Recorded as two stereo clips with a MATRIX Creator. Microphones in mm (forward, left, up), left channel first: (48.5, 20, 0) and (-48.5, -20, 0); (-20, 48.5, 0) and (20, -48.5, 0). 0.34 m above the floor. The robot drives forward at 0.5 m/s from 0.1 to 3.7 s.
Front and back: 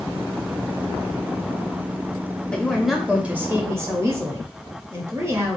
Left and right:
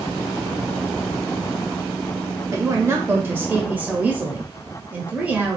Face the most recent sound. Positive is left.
turn(degrees=-130)